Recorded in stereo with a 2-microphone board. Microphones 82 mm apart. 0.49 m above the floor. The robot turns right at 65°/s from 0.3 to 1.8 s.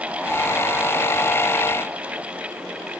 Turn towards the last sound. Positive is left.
No sound to turn to.